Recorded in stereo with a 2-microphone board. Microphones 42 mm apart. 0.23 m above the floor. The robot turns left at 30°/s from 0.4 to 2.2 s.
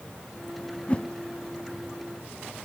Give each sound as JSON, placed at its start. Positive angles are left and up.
{"t": 0.9, "sound": "a whoosh", "side_deg": 30, "distance_m": 0.6}